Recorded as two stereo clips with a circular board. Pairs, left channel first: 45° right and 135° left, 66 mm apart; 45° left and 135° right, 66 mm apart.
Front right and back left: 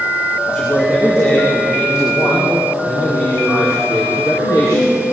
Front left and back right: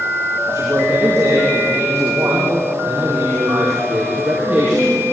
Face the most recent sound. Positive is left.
turn(degrees=-60)